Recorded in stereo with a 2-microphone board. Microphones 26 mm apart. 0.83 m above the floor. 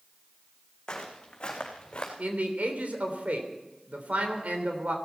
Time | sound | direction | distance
0.9 | footsteps | 30° left (ahead or behind) | 3.5 m
2.2 | a man speaking | 75° right (ahead or behind) | 3 m